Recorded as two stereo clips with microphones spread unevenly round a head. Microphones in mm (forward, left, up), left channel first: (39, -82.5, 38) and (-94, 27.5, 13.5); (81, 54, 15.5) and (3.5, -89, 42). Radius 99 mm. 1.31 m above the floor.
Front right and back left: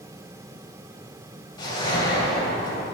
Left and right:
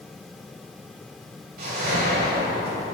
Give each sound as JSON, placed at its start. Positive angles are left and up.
{"t": 1.6, "sound": "a whoosh", "azimuth_deg": -100, "distance_m": 2.5}